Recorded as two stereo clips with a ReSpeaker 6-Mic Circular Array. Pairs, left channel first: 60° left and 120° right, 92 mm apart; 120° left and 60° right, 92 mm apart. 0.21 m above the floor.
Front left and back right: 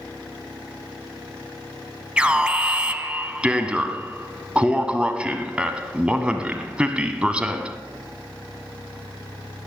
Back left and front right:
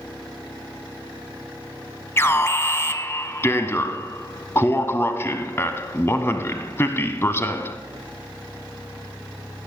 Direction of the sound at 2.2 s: 170° left.